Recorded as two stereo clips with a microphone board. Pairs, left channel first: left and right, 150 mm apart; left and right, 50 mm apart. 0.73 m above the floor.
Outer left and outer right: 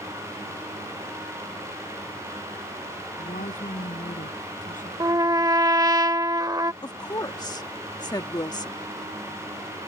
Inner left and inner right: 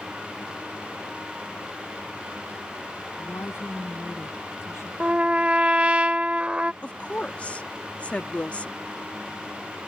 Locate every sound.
3.2 s a woman speaking: 60° left (ahead or behind)
5.0 s a trumpet: 25° right (ahead or behind)
6.8 s a woman speaking: 30° left (ahead or behind)